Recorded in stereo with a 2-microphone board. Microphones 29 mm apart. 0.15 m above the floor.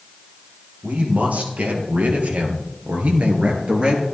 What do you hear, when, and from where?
0.8 s a man speaking: 55° right (ahead or behind), 4 m; by 4.0 s 35° right (ahead or behind), 3 m